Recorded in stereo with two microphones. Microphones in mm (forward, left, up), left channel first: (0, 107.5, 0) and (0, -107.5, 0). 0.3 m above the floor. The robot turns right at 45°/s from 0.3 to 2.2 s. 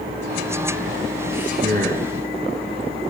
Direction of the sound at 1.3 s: 65° right.